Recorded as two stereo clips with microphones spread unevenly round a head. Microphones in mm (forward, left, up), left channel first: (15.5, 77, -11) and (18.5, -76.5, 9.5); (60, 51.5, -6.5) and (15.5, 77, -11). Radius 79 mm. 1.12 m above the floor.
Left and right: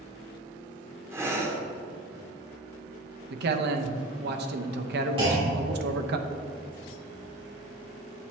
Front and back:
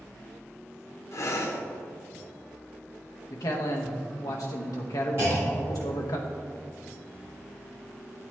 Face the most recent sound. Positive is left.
turn(degrees=-150)